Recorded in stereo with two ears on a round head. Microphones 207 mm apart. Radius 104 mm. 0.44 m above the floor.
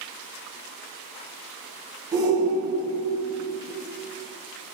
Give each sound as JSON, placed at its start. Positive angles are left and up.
{"t": 2.1, "sound": "a shout", "side_deg": -20, "distance_m": 2.5}